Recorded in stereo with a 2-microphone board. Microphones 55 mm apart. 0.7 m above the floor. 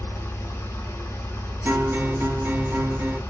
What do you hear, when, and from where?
0.0 s an engine running: 60° left (ahead or behind), 0.9 m
1.6 s a guitar: 40° right (ahead or behind), 0.9 m